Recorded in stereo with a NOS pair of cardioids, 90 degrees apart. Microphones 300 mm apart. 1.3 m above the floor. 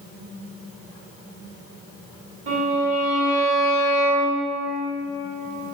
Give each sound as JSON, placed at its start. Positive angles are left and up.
{"t": 2.5, "sound": "a violin", "azimuth_deg": -50, "distance_m": 1.7}